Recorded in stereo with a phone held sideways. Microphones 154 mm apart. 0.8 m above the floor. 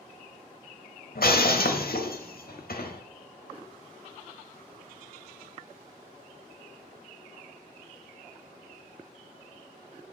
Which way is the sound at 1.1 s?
75° left (ahead or behind).